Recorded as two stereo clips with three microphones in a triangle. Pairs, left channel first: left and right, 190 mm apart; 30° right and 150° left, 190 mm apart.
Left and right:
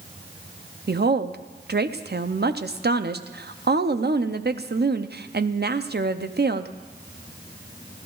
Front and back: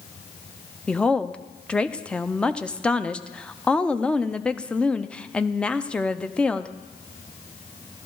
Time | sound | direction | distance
0.9 | a woman speaking | 115° right | 0.6 m